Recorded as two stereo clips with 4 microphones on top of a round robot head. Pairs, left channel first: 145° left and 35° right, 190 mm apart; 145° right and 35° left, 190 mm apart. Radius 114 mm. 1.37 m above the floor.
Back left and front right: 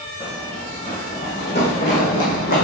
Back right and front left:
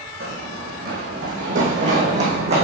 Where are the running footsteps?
75° left, 3.5 m; by 2.6 s 95° left, 4 m.